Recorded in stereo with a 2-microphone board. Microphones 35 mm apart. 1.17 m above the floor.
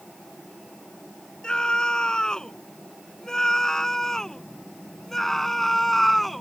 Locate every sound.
1.4 s a scream: 20° left (ahead or behind); by 6.4 s 5° left (ahead or behind)